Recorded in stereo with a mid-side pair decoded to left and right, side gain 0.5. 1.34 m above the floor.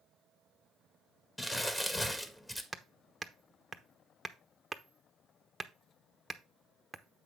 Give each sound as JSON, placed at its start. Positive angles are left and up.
{"t": 1.4, "sound": "crumpling", "azimuth_deg": 15, "distance_m": 1.6}
{"t": 2.7, "sound": "hammering", "azimuth_deg": -10, "distance_m": 1.0}